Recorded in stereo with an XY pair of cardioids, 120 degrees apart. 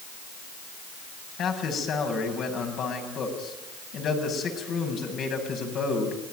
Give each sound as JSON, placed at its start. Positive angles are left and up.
{"t": 1.4, "sound": "a man speaking", "azimuth_deg": 60, "distance_m": 8.0}